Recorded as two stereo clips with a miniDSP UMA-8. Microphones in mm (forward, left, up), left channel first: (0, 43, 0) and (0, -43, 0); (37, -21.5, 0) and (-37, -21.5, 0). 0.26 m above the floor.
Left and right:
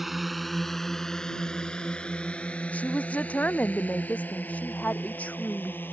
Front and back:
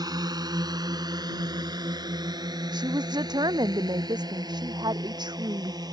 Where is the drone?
Straight behind; by 5.9 s 155° left.